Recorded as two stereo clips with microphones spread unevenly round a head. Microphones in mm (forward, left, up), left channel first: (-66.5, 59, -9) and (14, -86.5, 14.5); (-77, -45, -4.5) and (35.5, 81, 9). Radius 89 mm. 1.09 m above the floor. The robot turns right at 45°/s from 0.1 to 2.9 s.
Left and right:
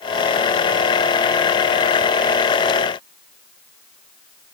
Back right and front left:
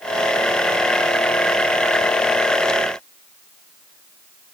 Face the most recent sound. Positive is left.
No sound to turn to.